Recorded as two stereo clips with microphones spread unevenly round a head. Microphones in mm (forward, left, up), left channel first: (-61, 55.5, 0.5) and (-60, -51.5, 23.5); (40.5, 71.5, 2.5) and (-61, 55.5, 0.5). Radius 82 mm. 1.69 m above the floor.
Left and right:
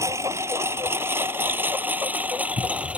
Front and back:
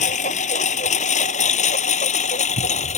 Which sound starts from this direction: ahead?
A lawn mower, at 0.0 s.